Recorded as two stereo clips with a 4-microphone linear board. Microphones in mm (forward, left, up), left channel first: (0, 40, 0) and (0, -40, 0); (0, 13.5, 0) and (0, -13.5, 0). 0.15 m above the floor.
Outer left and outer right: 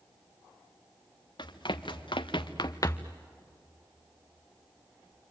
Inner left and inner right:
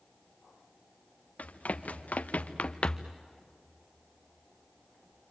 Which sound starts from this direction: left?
Running footsteps, at 1.4 s.